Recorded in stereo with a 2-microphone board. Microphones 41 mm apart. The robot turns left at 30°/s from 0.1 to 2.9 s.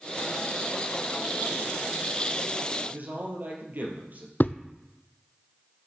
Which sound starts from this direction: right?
A man speaking, at 2.9 s.